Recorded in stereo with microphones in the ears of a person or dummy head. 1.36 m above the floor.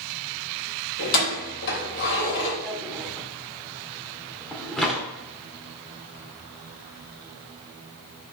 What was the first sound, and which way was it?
Keys jangling, 60° left (ahead or behind).